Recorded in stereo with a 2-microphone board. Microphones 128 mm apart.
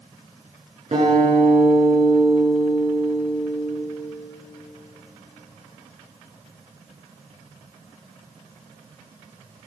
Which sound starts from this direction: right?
A guitar, at 0.9 s.